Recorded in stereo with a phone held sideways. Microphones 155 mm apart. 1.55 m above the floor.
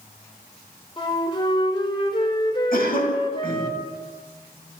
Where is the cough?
60° left (ahead or behind), 10 m.